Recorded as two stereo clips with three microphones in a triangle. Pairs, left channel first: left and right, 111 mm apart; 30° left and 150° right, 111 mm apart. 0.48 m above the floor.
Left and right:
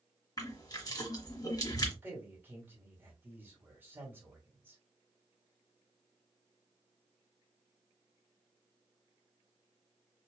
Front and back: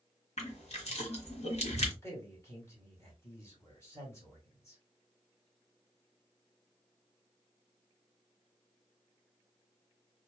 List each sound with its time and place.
0.4 s crushing: 40° left, 1.4 m
2.0 s a man speaking: 25° right, 2.0 m